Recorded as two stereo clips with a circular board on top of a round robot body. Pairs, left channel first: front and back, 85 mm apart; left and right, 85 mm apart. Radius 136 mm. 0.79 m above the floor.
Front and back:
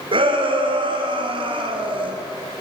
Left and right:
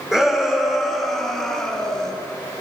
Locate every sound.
0.1 s a shout: 175° right, 3 m; by 2.1 s 175° left, 4 m